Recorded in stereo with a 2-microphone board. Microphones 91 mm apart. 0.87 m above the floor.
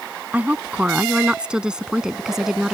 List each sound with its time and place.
0.3 s a woman speaking: 20° right (ahead or behind); by 2.7 s 5° right (ahead or behind)